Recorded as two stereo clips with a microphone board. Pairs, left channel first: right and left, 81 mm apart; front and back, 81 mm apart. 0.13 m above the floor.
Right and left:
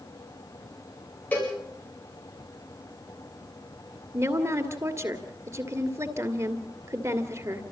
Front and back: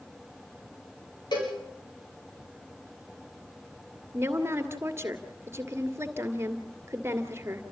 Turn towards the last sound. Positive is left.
turn(degrees=130)